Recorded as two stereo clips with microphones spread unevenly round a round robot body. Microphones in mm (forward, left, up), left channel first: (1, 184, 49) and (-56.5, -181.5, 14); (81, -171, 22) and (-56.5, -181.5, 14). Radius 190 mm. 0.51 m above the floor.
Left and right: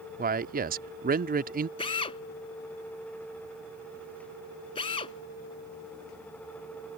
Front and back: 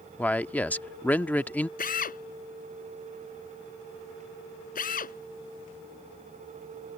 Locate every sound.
0.2 s a man speaking: 70° right
1.8 s a drill: 5° left